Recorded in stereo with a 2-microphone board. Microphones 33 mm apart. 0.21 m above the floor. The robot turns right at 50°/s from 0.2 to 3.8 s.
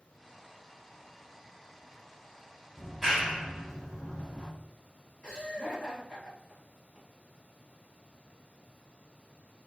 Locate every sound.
2.8 s a clap: 5° right (ahead or behind), 1.2 m; by 4.5 s 25° right (ahead or behind), 1.2 m
5.2 s laughter: 30° left (ahead or behind), 1.2 m